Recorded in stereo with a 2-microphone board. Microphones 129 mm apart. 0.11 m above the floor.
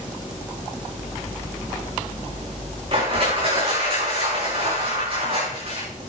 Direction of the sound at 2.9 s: 45° right (ahead or behind).